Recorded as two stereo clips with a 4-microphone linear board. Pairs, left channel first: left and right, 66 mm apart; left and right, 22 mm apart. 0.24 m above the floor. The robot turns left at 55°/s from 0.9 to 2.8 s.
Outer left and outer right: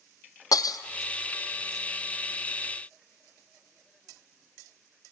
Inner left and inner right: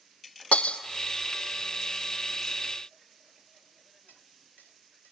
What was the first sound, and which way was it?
Breaking glass, 75° left (ahead or behind).